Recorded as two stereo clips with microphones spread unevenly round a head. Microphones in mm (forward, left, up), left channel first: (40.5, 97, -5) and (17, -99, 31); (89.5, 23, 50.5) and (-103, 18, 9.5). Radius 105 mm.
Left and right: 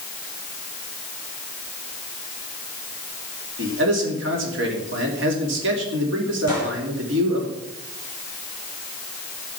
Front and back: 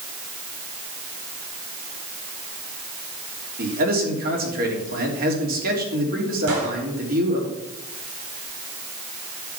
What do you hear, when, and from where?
3.6 s a man speaking: 130° right, 3 m
6.5 s a gunshot: 165° right, 5 m